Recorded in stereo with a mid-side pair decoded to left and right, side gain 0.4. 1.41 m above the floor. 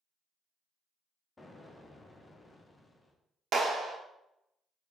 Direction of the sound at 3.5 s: 60° right.